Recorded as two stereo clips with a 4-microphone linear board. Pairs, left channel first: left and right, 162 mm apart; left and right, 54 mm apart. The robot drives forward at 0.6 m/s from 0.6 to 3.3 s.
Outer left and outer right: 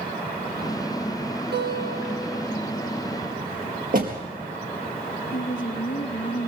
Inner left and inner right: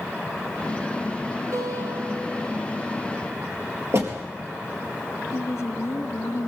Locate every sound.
1.5 s a guitar: 85° right, 5 m
3.9 s a door slam: 60° right (ahead or behind), 4 m
5.3 s a woman speaking: 70° left (ahead or behind), 2.5 m